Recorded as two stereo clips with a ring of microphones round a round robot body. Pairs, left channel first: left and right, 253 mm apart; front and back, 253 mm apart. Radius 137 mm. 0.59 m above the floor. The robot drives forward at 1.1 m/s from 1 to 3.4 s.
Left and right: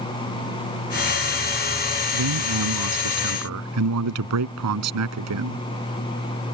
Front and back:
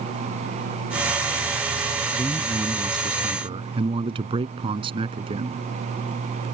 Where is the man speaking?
95° right; by 5.6 s 105° right.